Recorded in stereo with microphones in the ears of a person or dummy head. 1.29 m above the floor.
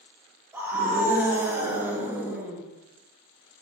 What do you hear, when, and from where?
0.5 s a scream: 10° right (ahead or behind), 4 m; by 2.6 s 15° right (ahead or behind), 2 m